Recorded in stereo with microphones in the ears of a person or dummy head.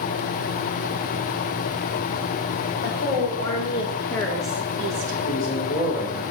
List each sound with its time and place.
2.8 s a woman speaking: 45° left (ahead or behind), 2.5 m; by 5.2 s 45° right (ahead or behind), 1.1 m
5.2 s a man speaking: 70° left (ahead or behind), 3.5 m